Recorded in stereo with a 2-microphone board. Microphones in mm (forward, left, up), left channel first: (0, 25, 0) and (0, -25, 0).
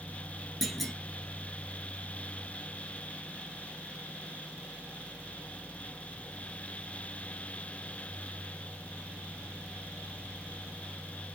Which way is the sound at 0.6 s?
Centre (ahead or behind).